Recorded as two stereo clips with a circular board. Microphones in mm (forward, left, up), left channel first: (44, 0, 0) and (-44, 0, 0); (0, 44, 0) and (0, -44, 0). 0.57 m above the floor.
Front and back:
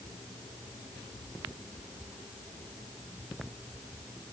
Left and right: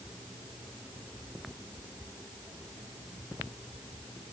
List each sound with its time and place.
Only background noise.